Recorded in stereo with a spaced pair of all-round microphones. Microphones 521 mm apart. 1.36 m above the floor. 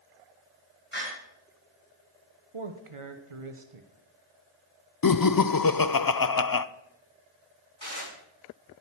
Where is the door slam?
20° left (ahead or behind), 5.5 m.